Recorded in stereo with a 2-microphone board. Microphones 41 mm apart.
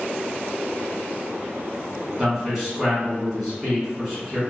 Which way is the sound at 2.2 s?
5° right (ahead or behind).